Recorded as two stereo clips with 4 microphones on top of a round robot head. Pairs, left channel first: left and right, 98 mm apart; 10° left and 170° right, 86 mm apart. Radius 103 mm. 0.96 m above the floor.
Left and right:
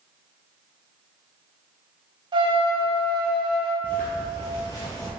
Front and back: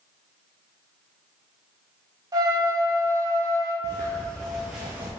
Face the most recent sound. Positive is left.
turn(degrees=135)